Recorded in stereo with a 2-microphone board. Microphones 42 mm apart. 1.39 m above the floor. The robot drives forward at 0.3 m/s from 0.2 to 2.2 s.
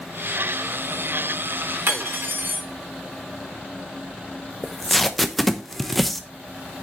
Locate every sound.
1.9 s cutlery clinking: 60° right (ahead or behind), 3 m
4.6 s tape being pulled: 5° left (ahead or behind), 0.9 m